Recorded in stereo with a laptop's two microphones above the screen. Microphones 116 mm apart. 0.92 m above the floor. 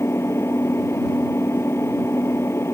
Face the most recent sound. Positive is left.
turn(degrees=20)  # may be behind; listen again after turning